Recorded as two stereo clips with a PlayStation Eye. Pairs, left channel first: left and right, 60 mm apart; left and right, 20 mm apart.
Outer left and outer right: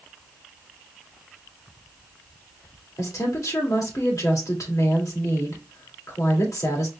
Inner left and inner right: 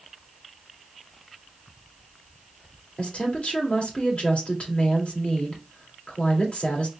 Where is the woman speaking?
70° left (ahead or behind), 2 m.